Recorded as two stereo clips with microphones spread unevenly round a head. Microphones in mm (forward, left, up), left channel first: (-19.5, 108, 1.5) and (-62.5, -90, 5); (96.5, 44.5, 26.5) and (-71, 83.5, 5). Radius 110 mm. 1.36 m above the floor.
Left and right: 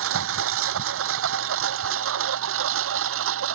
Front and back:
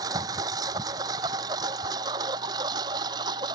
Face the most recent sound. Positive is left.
turn(degrees=-120)